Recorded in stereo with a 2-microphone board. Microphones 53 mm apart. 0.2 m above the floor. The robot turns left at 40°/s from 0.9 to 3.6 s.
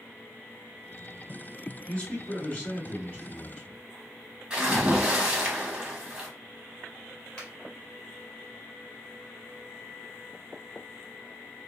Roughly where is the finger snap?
Centre.